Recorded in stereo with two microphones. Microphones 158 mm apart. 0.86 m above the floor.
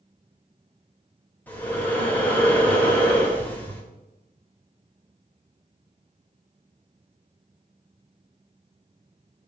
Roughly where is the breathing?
Centre.